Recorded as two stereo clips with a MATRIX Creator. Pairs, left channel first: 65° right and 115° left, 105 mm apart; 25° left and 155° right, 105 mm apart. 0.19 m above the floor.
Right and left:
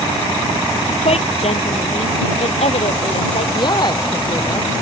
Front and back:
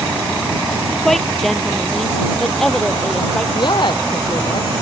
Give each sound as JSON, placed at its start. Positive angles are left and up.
{"t": 1.1, "sound": "a woman speaking", "azimuth_deg": -65}
{"t": 3.5, "sound": "a woman speaking", "azimuth_deg": -20}